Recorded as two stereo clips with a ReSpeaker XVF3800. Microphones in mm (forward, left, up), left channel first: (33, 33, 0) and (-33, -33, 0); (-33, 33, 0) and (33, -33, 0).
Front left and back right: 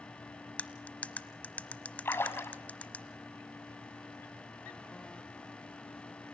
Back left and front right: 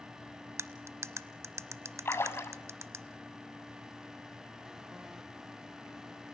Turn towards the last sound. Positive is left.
turn(degrees=90)